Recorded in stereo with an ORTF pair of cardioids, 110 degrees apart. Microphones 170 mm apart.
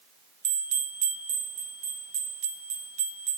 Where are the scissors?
I don't hear scissors.